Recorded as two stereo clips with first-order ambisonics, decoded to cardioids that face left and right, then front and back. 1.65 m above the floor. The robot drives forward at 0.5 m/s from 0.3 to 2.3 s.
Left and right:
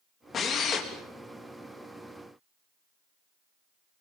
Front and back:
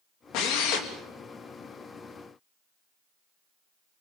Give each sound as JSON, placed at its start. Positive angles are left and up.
{"t": 0.3, "sound": "a drill", "azimuth_deg": 30, "distance_m": 3.5}